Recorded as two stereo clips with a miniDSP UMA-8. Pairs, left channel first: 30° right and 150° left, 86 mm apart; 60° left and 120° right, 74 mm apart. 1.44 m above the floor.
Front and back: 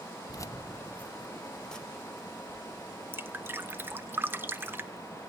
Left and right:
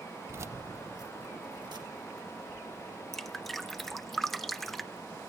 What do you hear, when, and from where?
0.3 s keys jangling: 65° right, 0.5 m; by 4.1 s 125° right, 3 m
3.1 s dripping: 140° left, 0.6 m